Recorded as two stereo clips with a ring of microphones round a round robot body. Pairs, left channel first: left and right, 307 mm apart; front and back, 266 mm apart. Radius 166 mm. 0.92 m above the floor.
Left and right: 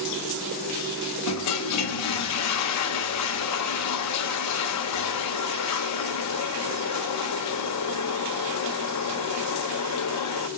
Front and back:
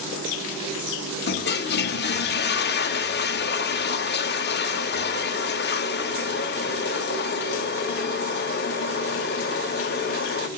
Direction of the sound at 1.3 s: 50° left.